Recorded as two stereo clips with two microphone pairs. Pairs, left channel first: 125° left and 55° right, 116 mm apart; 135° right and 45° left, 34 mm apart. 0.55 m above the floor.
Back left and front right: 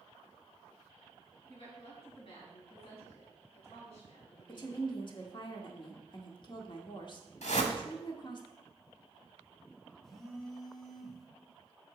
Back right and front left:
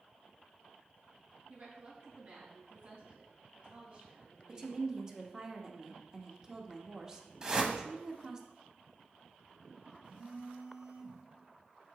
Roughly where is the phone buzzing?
Ahead left.